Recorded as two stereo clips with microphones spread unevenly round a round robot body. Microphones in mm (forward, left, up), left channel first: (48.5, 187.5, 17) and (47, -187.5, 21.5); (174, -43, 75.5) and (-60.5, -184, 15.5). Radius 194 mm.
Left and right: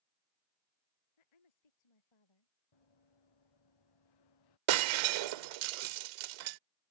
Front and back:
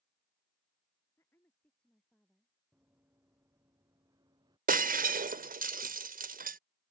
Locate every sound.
1.2 s a woman speaking: 115° left; by 2.5 s 125° left
2.7 s running footsteps: 125° left; by 4.6 s 130° left
4.7 s breaking glass: 80° right